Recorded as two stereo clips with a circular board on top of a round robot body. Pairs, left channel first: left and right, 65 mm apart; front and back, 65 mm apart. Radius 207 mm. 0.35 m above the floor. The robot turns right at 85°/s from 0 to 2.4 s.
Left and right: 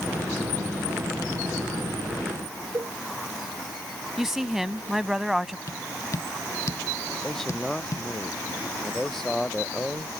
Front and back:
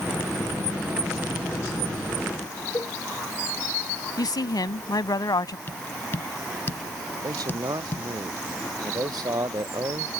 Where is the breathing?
No breathing in this recording.